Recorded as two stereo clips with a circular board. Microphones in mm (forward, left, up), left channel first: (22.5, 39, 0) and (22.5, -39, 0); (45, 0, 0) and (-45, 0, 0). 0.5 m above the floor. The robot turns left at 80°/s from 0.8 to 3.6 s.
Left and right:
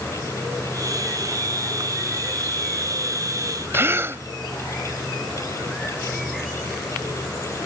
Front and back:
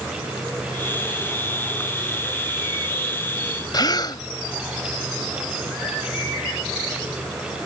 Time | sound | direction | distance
3.7 | a gasp | 35° right | ?